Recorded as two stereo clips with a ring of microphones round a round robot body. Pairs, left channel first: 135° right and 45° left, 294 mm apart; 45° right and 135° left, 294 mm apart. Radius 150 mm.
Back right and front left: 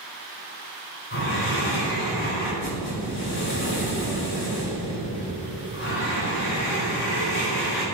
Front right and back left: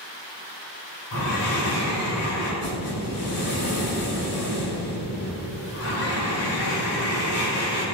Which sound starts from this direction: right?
Breathing, at 1.1 s.